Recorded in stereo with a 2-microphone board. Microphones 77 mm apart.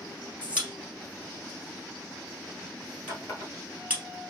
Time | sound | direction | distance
0.4 | a pop | 15° right (ahead or behind) | 1.9 m
3.1 | a running tap | 40° left (ahead or behind) | 1.4 m